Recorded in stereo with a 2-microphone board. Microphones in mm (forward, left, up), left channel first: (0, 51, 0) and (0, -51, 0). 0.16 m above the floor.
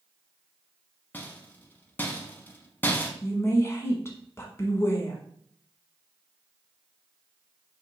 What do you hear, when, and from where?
1.1 s a rattle: 20° left (ahead or behind), 0.7 m
3.2 s a woman speaking: 25° left (ahead or behind), 1.1 m